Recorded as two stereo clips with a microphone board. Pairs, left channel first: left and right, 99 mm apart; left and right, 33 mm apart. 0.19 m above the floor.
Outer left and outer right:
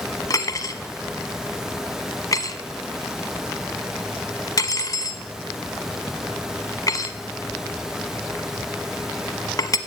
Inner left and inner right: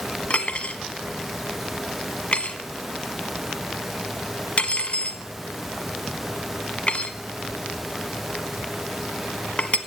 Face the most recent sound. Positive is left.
turn(degrees=40)  # may be behind; listen again after turning